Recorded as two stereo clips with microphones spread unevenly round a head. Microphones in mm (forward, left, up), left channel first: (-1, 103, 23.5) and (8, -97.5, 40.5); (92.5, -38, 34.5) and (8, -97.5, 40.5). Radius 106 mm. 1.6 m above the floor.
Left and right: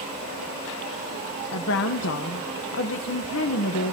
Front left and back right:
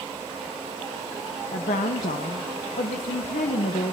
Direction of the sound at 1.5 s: 65° left.